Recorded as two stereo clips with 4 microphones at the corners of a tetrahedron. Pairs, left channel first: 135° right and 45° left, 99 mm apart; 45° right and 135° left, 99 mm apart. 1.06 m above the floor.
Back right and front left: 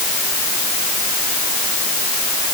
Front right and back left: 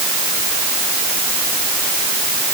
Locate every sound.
Only background noise.